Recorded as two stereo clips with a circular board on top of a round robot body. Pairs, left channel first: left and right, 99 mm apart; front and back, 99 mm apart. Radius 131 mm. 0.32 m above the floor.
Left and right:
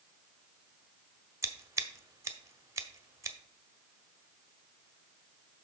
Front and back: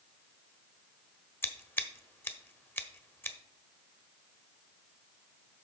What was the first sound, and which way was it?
Scissors, 55° right.